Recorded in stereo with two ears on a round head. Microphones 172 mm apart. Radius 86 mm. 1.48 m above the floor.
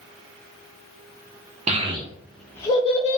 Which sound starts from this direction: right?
A child speaking, at 1.7 s.